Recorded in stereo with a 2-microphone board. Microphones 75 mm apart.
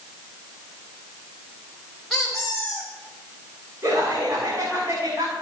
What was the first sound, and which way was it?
A squeak, 5° left (ahead or behind).